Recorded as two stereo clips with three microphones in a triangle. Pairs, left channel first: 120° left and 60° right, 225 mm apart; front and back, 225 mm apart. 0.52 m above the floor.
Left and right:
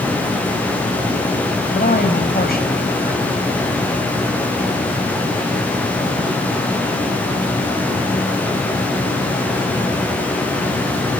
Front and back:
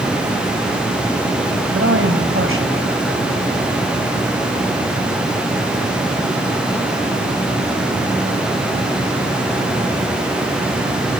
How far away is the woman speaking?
About 3.5 m.